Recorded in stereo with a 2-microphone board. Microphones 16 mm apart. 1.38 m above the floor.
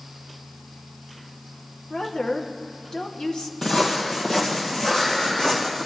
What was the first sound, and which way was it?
A woman speaking, 65° left (ahead or behind).